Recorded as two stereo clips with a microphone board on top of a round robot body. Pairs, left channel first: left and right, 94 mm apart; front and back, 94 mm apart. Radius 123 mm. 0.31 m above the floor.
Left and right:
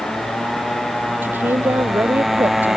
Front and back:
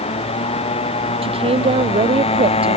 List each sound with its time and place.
0.0 s a motorcycle: 5° left; by 2.8 s 5° right
1.2 s a woman speaking: 160° right